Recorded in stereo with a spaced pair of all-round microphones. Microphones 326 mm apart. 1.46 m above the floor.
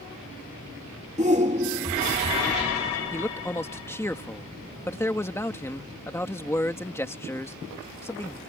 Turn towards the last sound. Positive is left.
turn(degrees=10)  # may be behind; listen again after turning